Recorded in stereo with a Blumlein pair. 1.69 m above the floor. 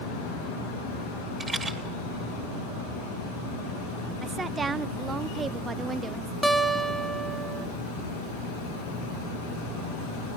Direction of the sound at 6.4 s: Straight ahead.